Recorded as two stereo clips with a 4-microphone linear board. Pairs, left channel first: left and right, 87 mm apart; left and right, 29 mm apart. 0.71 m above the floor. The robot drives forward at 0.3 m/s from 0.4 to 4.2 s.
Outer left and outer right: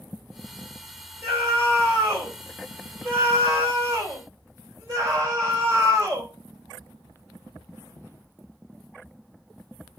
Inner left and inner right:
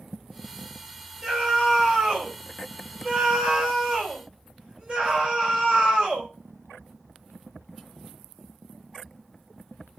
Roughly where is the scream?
Right.